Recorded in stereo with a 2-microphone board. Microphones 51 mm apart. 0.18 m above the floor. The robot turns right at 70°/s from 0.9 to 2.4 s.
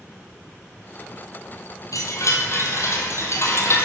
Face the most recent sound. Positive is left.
turn(degrees=120)